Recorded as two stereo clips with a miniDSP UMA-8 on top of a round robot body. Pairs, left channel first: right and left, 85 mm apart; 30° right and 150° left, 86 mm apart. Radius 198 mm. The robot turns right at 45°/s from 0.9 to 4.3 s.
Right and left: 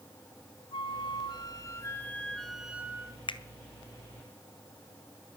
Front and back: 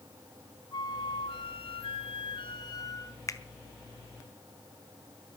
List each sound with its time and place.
0.7 s a flute: 70° right, 1.8 m; by 3.2 s 30° left, 1.8 m
3.3 s a finger snap: 85° right, 1.7 m; by 3.4 s 80° right, 1.7 m